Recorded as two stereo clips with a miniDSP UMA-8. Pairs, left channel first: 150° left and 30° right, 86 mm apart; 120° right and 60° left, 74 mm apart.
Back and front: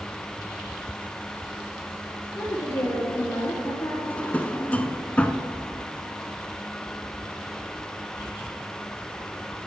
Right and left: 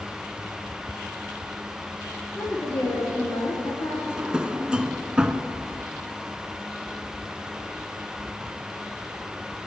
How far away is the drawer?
About 0.5 m.